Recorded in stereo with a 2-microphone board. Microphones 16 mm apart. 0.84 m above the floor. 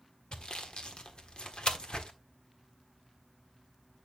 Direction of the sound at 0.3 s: 70° left (ahead or behind).